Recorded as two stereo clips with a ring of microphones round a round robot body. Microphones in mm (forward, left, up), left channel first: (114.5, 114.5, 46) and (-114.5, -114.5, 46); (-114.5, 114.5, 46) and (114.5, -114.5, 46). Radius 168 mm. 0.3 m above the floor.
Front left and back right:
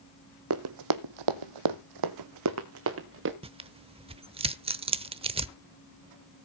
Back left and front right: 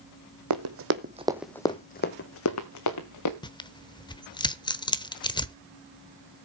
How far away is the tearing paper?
About 0.9 m.